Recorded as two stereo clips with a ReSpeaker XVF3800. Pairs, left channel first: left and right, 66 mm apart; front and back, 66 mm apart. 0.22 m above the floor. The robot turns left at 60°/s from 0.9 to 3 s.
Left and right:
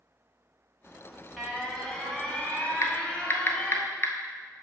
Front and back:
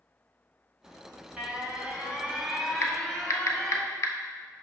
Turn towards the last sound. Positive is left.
turn(degrees=35)